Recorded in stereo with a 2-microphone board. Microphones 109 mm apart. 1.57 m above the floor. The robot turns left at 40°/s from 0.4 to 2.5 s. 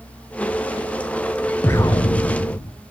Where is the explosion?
160° left, 0.9 m; by 2.7 s 125° left, 0.9 m.